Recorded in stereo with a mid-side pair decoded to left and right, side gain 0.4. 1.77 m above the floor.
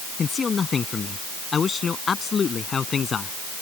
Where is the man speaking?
40° left; by 3.4 s 45° left.